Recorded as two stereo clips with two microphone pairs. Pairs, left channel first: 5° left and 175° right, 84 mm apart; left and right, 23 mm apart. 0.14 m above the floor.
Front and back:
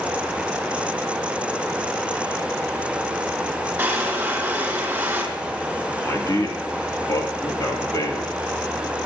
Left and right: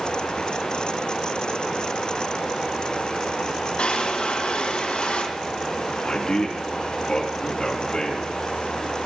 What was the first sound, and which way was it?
A drawer, 115° left.